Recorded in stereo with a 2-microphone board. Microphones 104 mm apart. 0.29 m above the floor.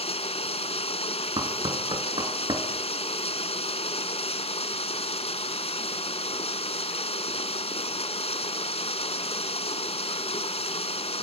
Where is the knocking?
50° right (ahead or behind), 3.5 m.